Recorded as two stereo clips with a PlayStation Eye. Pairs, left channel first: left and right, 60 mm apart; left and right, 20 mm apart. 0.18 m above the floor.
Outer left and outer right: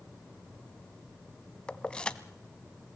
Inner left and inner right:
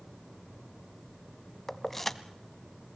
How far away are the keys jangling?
About 0.8 m.